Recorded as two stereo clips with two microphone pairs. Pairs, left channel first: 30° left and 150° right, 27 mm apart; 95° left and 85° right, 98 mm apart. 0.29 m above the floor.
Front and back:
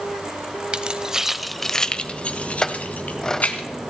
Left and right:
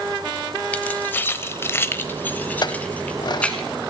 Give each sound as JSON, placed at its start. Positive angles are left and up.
{"t": 0.7, "sound": "keys jangling", "azimuth_deg": 165, "distance_m": 0.8}
{"t": 2.6, "sound": "a clink", "azimuth_deg": 85, "distance_m": 0.9}